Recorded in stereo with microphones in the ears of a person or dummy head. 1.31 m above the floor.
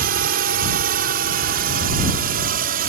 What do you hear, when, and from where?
0.0 s a drone: 45° right (ahead or behind)